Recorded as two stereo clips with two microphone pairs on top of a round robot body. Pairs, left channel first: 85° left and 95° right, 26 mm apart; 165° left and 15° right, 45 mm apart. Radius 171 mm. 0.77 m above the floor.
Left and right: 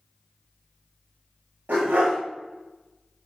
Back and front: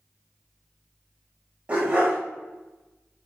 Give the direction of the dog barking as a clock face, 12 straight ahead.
3 o'clock.